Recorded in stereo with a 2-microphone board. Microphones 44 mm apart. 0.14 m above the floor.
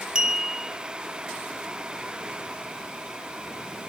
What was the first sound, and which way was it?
A clink, 15° right (ahead or behind).